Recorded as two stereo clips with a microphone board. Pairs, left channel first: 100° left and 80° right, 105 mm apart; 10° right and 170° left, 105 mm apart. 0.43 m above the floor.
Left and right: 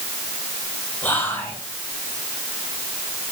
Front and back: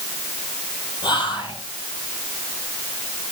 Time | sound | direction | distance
1.0 | whispering | 30° left | 5 m